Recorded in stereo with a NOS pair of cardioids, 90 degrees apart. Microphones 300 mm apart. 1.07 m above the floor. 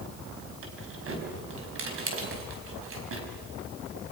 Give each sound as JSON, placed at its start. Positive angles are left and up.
{"t": 0.6, "sound": "keys jangling", "azimuth_deg": -45, "distance_m": 5.5}